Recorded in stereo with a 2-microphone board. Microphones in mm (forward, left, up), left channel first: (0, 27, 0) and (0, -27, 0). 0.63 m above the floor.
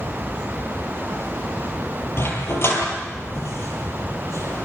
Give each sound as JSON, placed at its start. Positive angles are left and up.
{"t": 2.2, "sound": "a dog barking", "side_deg": 45, "distance_m": 7.5}